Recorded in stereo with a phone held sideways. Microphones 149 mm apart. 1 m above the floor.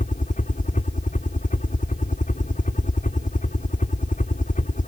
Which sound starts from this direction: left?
A helicopter, at 0.0 s.